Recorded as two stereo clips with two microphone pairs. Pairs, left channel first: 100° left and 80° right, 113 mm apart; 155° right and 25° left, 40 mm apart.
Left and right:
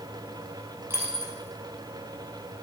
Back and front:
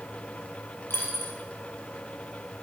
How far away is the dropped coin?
About 2.5 m.